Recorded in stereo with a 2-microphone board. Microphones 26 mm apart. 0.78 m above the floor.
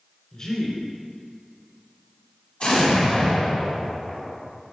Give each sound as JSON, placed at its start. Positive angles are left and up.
{"t": 0.3, "sound": "a man speaking", "side_deg": 25, "distance_m": 3.0}
{"t": 2.6, "sound": "an explosion", "side_deg": 45, "distance_m": 2.5}